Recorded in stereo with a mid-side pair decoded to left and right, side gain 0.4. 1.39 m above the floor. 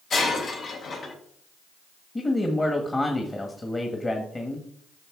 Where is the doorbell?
No doorbell in this recording.